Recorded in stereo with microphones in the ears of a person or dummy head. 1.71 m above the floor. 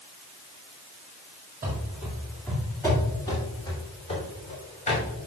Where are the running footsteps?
15° right (ahead or behind), 1.8 m; by 5.0 s 35° left (ahead or behind), 3.5 m.